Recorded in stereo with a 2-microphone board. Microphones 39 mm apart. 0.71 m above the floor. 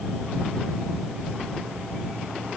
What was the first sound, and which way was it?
Only background noise.